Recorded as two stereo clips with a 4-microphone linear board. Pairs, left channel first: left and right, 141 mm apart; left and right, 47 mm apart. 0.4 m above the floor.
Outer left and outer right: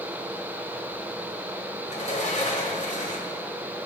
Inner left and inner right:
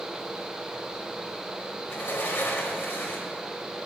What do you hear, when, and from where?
1.9 s a sliding door: 55° left (ahead or behind), 1.5 m